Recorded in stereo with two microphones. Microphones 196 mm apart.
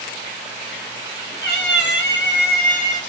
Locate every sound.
1.4 s a cat meowing: 55° left (ahead or behind), 0.8 m; by 3.0 s 35° left (ahead or behind), 1.0 m